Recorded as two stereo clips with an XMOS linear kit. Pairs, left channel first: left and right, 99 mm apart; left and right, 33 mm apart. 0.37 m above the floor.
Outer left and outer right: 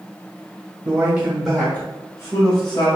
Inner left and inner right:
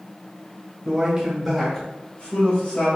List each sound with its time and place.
0.8 s a man speaking: 30° right (ahead or behind), 1.1 m; by 2.9 s 55° left (ahead or behind), 1.7 m